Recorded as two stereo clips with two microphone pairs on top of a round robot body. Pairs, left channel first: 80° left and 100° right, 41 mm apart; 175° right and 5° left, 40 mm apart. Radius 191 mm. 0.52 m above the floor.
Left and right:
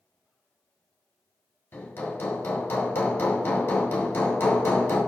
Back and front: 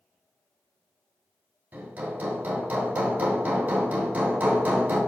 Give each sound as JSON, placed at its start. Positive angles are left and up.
{"t": 1.7, "sound": "hammering", "azimuth_deg": 55, "distance_m": 2.5}